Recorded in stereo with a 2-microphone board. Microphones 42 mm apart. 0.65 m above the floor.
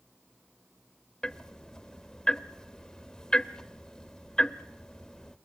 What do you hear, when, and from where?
1.2 s ticking: 20° left (ahead or behind), 0.9 m